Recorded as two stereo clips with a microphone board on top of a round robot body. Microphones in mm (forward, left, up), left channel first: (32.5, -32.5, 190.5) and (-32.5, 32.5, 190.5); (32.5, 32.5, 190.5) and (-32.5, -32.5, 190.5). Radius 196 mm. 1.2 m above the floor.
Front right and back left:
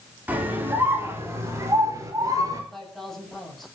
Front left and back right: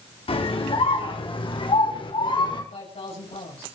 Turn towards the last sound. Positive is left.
turn(degrees=40)